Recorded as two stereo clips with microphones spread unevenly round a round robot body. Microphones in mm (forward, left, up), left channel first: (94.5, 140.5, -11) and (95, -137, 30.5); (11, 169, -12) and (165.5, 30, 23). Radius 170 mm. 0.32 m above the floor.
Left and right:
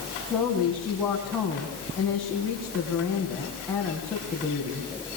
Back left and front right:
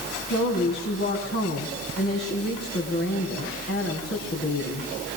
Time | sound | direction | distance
0.3 | a woman speaking | 175° left | 3.5 m